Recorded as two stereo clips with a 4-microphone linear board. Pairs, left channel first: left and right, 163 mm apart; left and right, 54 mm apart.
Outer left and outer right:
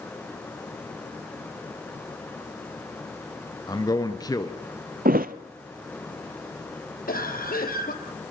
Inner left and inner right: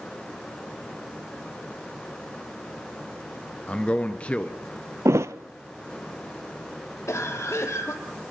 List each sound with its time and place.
3.7 s a man speaking: 25° left (ahead or behind), 1.4 m
5.0 s a thud: 65° right (ahead or behind), 0.8 m
7.1 s a cough: 65° left (ahead or behind), 3 m